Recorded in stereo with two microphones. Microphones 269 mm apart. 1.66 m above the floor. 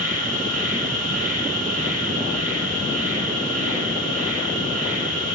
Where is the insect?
35° right (ahead or behind), 6 m.